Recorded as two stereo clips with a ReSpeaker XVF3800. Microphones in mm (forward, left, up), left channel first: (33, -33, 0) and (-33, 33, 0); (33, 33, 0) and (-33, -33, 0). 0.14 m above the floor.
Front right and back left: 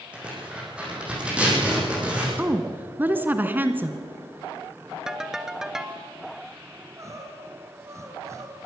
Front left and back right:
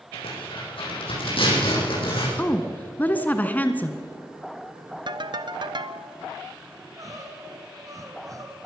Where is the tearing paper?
55° left, 8.5 m.